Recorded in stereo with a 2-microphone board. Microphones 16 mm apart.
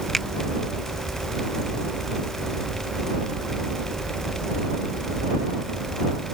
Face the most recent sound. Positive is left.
turn(degrees=15)  # may be behind; listen again after turning